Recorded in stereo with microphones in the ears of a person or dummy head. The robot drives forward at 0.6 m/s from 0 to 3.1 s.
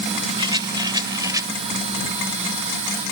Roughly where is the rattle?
Right.